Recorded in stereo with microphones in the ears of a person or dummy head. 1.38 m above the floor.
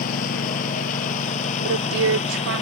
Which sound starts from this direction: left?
A lawn mower, at 0.0 s.